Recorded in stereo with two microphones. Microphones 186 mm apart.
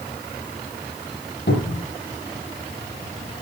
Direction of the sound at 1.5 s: 70° left (ahead or behind).